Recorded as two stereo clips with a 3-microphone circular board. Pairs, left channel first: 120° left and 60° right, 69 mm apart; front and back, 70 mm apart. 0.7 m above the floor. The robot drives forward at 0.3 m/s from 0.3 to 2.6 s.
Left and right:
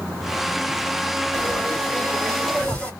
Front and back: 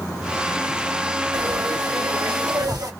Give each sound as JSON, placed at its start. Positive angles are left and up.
{"t": 1.3, "sound": "frying", "azimuth_deg": -165, "distance_m": 3.0}